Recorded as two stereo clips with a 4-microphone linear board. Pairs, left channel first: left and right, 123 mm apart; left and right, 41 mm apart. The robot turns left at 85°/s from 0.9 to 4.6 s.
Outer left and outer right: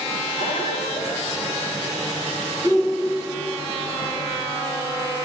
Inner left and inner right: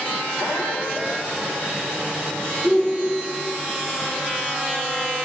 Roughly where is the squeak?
Left.